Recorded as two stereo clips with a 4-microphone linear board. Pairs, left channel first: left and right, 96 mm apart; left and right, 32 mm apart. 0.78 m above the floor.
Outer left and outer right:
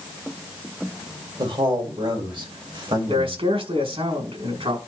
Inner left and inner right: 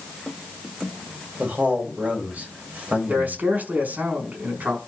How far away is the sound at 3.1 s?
About 6 m.